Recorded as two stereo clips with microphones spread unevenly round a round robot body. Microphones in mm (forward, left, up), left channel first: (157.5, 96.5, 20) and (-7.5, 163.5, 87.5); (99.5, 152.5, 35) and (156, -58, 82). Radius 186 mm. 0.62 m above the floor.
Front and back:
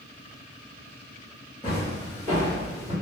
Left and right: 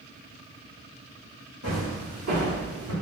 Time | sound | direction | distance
1.6 | footsteps | 120° right | 1.9 m